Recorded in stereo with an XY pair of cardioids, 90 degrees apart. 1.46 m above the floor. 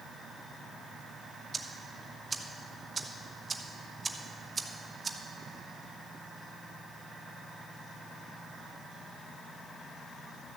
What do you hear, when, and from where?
1.5 s ticking: 25° right, 1.1 m